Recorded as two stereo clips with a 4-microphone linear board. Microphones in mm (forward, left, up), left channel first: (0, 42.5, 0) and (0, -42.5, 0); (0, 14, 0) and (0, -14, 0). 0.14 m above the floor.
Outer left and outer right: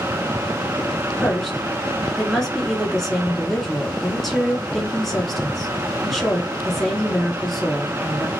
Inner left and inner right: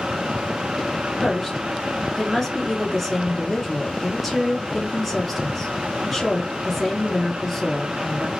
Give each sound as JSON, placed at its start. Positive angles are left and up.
{"t": 1.2, "sound": "a woman speaking", "side_deg": 5, "distance_m": 1.4}